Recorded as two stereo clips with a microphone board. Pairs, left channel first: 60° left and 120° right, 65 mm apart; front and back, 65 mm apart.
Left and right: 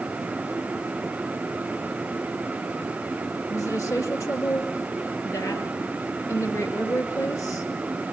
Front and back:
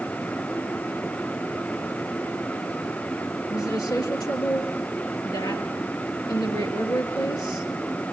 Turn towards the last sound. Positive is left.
turn(degrees=15)